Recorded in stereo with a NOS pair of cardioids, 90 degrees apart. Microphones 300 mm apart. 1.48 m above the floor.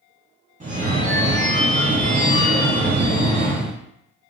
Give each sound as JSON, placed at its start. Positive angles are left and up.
{"t": 0.6, "sound": "a phone ringing", "azimuth_deg": -25, "distance_m": 1.4}